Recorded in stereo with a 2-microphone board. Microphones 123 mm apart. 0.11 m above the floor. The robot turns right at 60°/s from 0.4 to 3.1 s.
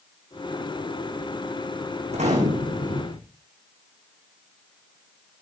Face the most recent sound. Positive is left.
turn(degrees=-60)